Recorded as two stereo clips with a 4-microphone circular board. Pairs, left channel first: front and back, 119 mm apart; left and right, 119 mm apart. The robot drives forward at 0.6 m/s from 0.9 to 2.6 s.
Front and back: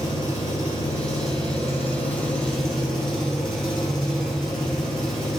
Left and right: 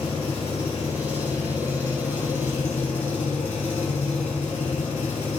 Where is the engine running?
55° left, 1.9 m; by 5.4 s 90° left, 1.5 m.